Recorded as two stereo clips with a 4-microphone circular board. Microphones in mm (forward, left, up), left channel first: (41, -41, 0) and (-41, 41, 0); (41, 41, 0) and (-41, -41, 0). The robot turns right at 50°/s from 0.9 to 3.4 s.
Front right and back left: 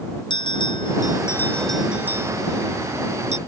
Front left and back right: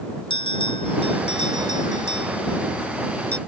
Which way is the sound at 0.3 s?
Straight ahead.